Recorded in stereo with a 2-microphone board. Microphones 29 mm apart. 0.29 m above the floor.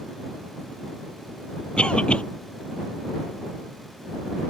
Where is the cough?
40° left (ahead or behind).